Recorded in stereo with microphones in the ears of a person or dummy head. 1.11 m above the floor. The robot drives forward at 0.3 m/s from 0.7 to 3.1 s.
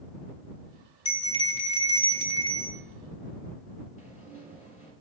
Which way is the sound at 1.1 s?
35° left (ahead or behind).